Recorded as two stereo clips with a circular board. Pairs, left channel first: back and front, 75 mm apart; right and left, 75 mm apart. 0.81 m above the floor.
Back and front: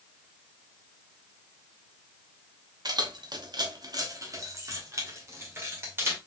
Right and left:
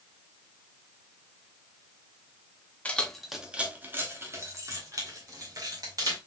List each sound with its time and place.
2.9 s keys jangling: 20° right, 0.8 m; by 6.2 s 55° left, 2.5 m